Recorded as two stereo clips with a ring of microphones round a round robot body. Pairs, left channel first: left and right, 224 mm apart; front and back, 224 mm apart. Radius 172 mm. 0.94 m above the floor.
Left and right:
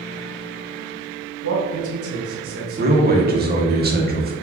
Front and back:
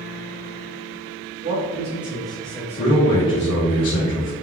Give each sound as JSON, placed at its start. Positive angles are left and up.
{"t": 1.4, "sound": "a man speaking", "azimuth_deg": -115, "distance_m": 2.0}
{"t": 2.8, "sound": "a man speaking", "azimuth_deg": -45, "distance_m": 2.0}